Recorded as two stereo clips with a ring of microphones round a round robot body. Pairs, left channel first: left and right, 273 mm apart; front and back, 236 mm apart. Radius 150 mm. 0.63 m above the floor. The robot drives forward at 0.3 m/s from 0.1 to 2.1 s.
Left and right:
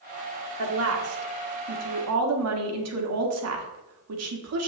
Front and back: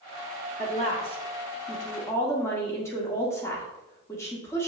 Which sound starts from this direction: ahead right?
A woman speaking, at 0.6 s.